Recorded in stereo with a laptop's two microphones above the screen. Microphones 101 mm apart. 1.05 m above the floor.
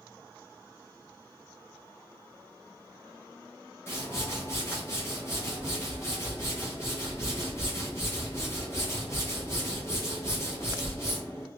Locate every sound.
3.9 s a whoosh: 25° left (ahead or behind), 1.0 m